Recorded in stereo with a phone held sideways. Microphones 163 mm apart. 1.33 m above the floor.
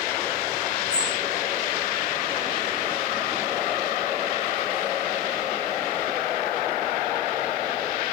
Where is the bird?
25° left (ahead or behind), 5.5 m.